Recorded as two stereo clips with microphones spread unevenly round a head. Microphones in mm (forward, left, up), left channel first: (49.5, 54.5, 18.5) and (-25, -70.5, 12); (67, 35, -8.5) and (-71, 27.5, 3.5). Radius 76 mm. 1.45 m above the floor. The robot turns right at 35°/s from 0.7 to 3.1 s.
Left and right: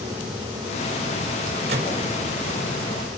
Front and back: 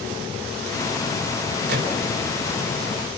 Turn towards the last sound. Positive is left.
turn(degrees=-125)